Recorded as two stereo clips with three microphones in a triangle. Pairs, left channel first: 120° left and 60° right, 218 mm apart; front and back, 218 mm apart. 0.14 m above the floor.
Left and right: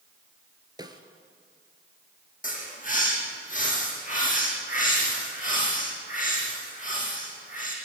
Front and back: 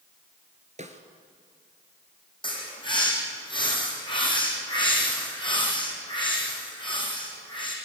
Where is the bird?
70° left, 6 m.